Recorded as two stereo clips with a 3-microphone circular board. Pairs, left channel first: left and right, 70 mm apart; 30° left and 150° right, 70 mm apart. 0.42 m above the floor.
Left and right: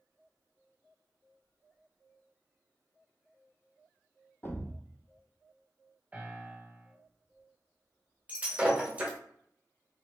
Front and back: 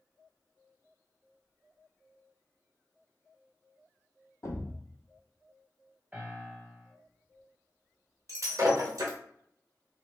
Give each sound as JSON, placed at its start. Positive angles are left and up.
{"t": 4.4, "sound": "a thud", "azimuth_deg": 40, "distance_m": 0.6}
{"t": 6.1, "sound": "a piano", "azimuth_deg": -120, "distance_m": 1.4}
{"t": 8.3, "sound": "breaking glass", "azimuth_deg": -155, "distance_m": 0.8}